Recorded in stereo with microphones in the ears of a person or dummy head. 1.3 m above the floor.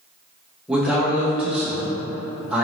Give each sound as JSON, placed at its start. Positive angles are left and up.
{"t": 0.7, "sound": "a man speaking", "side_deg": 0, "distance_m": 1.1}